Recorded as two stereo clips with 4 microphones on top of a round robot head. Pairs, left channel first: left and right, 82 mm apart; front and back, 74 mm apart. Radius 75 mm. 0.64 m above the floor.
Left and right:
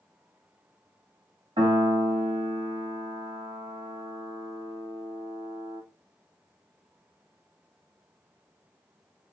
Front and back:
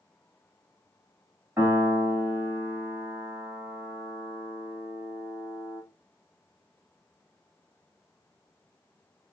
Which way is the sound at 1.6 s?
110° right.